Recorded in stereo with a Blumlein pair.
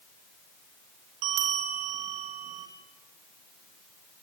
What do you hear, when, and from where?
1.2 s a bell: 45° right, 3.5 m